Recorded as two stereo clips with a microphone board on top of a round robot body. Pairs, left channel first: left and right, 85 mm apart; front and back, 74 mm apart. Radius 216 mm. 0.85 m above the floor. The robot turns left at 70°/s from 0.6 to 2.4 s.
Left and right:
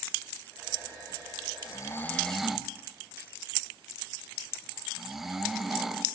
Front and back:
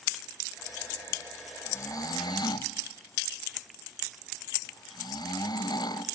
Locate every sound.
1.6 s snoring: 50° left, 1.5 m; by 6.0 s 5° right, 1.5 m